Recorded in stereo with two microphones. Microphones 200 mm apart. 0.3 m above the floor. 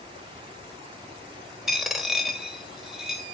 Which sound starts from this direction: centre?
A dropped coin, at 1.7 s.